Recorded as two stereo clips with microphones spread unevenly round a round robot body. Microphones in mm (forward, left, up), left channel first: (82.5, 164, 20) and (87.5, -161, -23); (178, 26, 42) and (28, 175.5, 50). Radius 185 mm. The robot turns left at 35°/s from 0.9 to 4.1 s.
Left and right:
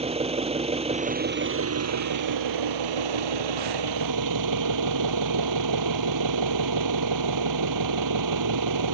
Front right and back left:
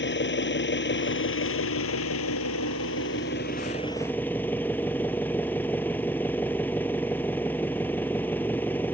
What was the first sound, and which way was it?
An engine running, 20° right.